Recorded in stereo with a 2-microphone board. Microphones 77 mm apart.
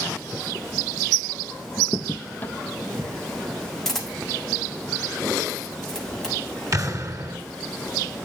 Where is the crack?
25° left (ahead or behind), 0.8 m.